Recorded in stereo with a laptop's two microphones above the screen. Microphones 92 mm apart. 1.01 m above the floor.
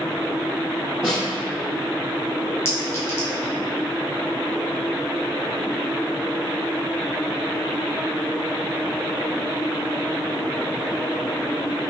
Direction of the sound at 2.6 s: 30° left (ahead or behind).